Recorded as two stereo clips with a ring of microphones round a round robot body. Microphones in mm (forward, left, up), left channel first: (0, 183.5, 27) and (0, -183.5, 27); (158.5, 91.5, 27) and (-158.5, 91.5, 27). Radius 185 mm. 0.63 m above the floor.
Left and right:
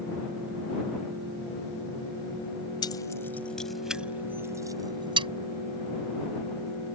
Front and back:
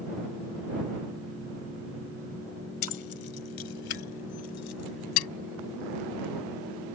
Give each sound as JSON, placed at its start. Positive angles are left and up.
{"t": 2.8, "sound": "keys jangling", "azimuth_deg": 10}